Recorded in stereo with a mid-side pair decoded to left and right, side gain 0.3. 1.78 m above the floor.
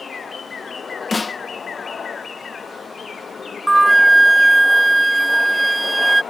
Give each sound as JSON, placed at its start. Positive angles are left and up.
{"t": 1.1, "sound": "a snare drum", "azimuth_deg": 30}
{"t": 3.7, "sound": "a flute", "azimuth_deg": -25}